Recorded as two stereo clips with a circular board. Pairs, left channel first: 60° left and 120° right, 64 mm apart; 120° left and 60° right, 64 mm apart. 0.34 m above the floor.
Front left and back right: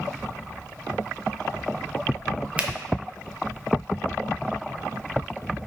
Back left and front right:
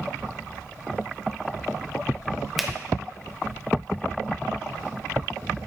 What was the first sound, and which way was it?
A finger snap, 145° right.